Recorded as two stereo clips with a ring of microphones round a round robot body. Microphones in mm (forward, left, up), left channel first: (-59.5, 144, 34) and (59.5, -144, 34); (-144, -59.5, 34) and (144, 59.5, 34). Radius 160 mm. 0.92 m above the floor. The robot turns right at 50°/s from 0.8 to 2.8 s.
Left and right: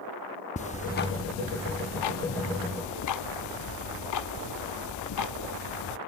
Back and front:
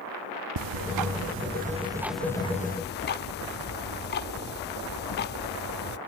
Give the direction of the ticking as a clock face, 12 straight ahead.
11 o'clock.